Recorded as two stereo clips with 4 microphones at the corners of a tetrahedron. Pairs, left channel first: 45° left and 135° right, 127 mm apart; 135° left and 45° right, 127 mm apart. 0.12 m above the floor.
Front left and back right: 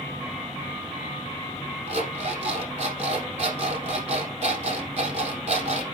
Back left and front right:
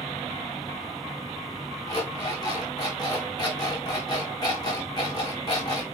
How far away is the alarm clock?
About 4 m.